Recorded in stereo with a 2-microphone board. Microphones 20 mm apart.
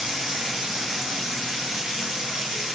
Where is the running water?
80° right, 3.5 m.